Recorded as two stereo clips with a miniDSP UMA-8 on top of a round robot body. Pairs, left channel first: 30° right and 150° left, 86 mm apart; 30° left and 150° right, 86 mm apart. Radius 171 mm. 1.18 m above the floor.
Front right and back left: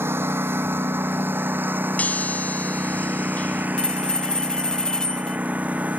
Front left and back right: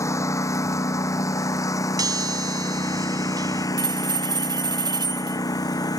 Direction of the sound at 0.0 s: 85° left.